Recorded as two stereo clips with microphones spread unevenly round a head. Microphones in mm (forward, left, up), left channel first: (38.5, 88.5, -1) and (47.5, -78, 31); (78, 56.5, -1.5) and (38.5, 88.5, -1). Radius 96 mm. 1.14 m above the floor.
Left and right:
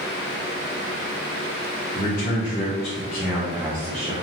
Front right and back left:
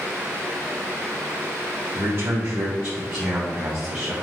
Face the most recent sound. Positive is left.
turn(degrees=-145)